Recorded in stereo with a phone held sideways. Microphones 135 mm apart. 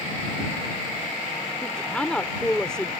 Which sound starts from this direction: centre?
A woman speaking, at 1.6 s.